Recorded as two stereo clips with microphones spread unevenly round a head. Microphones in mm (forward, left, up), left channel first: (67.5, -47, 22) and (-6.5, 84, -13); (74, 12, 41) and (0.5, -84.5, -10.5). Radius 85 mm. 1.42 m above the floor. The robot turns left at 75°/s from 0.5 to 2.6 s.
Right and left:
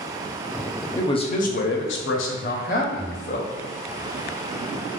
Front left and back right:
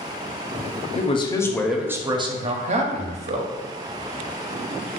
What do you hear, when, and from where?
0.9 s a man speaking: 15° left, 0.6 m; by 3.5 s 110° right, 0.6 m